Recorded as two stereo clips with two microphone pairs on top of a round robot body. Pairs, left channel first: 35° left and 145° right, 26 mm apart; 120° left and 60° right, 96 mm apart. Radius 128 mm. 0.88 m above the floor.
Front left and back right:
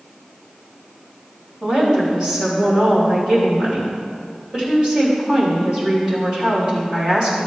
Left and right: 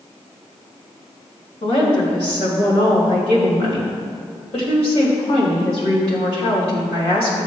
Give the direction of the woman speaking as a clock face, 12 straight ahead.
7 o'clock.